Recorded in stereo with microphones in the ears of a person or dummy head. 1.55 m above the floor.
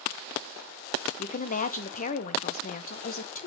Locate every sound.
1.2 s a woman speaking: 45° left (ahead or behind), 0.6 m